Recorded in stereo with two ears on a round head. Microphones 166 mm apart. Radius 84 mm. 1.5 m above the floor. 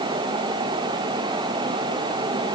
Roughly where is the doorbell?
No doorbell in this recording.